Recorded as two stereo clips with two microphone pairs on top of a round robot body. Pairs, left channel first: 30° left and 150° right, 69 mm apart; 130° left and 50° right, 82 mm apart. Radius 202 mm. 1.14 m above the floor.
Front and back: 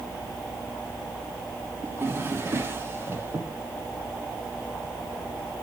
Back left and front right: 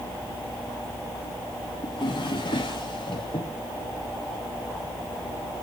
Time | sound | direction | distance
1.8 | a drawer | 155° left | 0.7 m